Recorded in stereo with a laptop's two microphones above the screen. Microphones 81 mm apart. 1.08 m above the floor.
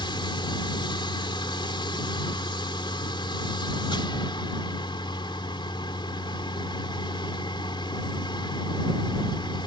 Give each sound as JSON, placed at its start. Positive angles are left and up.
{"t": 0.0, "sound": "a machine running", "side_deg": 80}